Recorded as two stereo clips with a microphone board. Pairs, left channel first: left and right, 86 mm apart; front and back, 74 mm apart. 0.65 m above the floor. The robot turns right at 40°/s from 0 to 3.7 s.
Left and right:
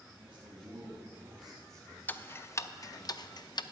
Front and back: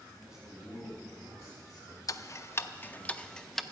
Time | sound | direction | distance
0.2 | a man speaking | 100° right | 4 m
2.1 | ticking | 25° left | 0.5 m